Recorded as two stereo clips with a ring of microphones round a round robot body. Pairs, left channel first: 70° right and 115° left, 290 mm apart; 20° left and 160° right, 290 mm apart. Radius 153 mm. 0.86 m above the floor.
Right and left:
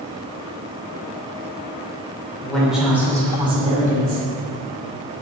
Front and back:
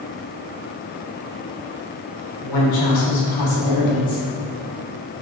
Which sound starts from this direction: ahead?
A woman speaking, at 2.4 s.